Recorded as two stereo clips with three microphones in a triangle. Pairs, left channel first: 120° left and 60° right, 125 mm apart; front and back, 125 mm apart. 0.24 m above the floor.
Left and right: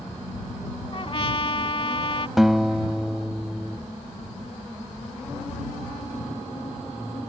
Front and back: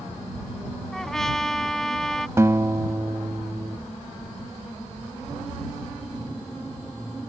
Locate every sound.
0.9 s a trumpet: 85° left
2.4 s a guitar: 145° right